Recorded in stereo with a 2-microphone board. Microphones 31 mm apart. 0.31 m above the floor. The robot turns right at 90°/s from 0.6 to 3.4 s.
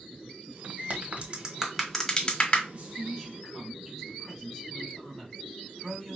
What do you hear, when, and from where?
0.9 s a crack: 50° right (ahead or behind), 1.2 m; by 2.6 s 50° left (ahead or behind), 1.2 m
2.7 s a man speaking: 55° right, 2.5 m; by 6.2 s 5° left, 2.5 m